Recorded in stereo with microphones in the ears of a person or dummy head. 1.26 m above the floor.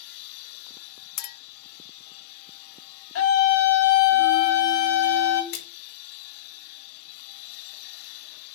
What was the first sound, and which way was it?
A clink, 50° left (ahead or behind).